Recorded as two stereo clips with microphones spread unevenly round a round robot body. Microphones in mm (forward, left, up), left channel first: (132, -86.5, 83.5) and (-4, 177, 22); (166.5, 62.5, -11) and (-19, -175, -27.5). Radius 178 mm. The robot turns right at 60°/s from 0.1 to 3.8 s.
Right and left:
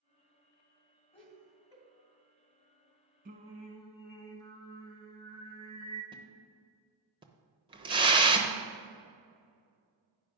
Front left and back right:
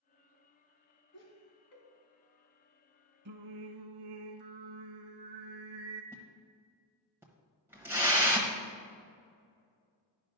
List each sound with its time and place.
1.1 s laughter: 10° left, 3.5 m; by 1.8 s 55° left, 3.5 m
3.2 s singing: 175° right, 0.6 m; by 6.0 s 145° right, 0.6 m
6.1 s a splash: 155° left, 0.8 m